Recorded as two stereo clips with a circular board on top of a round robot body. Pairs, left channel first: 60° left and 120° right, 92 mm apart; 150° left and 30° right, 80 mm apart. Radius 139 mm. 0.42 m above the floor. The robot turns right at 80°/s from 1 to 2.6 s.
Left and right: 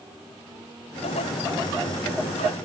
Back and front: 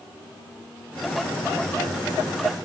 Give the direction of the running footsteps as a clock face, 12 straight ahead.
I don't hear running footsteps.